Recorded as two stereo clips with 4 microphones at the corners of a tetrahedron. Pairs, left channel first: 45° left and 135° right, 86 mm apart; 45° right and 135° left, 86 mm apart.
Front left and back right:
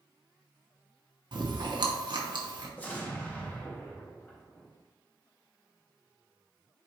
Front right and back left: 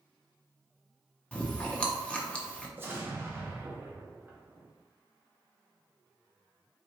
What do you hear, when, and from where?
1.3 s chewing: 120° right, 0.8 m
2.8 s an explosion: 95° left, 0.9 m